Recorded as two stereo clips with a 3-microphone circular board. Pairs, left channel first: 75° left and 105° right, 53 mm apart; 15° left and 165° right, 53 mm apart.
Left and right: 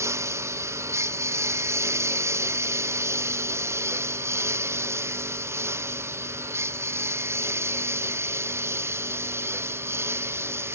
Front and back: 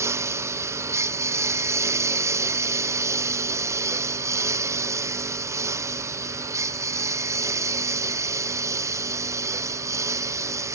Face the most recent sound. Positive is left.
turn(degrees=-145)